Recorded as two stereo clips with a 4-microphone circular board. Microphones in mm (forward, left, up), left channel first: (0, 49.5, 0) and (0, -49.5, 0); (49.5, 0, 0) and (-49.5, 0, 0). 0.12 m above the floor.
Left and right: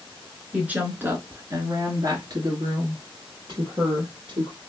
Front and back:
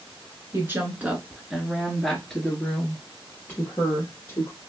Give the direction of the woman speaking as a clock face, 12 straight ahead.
5 o'clock.